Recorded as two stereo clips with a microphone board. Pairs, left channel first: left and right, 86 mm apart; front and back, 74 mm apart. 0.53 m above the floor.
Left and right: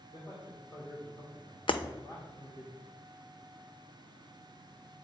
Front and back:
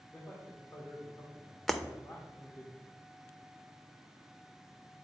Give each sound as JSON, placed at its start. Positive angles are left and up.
{"t": 0.1, "sound": "a man speaking", "azimuth_deg": 55, "distance_m": 1.5}
{"t": 1.7, "sound": "breaking glass", "azimuth_deg": 85, "distance_m": 0.5}